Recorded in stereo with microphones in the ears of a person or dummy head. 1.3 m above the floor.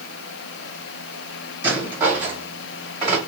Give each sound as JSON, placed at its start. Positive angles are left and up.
{"t": 1.6, "sound": "a rattle", "side_deg": -10, "distance_m": 2.5}